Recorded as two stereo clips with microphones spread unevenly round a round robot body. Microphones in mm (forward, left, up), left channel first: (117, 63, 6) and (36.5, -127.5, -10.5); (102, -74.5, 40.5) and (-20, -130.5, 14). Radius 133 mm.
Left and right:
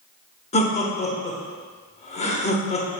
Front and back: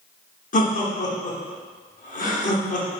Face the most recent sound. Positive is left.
turn(degrees=10)